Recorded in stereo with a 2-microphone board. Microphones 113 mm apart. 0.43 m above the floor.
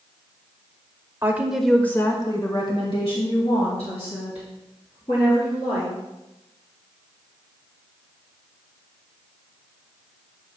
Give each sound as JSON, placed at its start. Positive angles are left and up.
{"t": 1.2, "sound": "a woman speaking", "side_deg": -20, "distance_m": 1.2}